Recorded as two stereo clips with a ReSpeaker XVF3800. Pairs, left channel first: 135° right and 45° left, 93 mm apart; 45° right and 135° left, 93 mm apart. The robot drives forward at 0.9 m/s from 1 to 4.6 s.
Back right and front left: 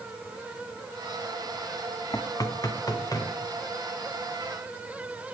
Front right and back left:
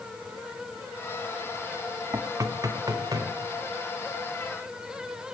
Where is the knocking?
Straight behind, 0.5 m.